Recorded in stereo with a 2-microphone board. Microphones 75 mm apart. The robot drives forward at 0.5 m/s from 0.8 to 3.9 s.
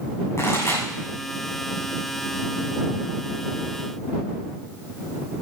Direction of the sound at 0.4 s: 40° left (ahead or behind).